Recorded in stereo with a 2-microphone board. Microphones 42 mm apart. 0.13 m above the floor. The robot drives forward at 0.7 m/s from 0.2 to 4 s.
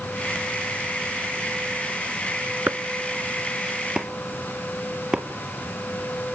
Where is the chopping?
40° right (ahead or behind), 0.5 m; by 5.2 s 20° right (ahead or behind), 1.1 m.